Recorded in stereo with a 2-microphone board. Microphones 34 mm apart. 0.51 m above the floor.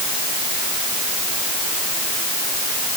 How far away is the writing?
I don't hear writing.